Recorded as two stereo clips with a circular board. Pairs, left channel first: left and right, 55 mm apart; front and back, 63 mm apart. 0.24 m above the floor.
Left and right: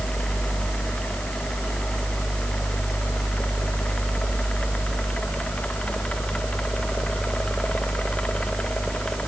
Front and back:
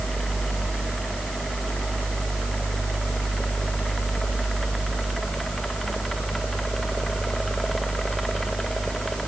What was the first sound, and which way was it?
Only background noise.